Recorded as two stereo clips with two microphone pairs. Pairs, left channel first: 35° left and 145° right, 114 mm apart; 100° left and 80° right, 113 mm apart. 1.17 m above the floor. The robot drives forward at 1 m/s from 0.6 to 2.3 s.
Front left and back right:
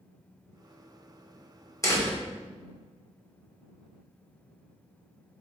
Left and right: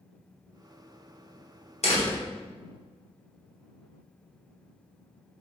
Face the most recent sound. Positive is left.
turn(degrees=105)